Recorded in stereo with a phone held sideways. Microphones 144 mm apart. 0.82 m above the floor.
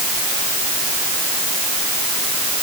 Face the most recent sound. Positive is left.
No sound to turn to.